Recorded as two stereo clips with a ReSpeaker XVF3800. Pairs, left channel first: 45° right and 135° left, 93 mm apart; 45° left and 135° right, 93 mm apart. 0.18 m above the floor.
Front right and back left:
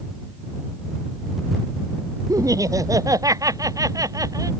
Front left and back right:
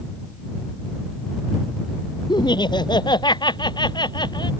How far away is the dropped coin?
I don't hear a dropped coin.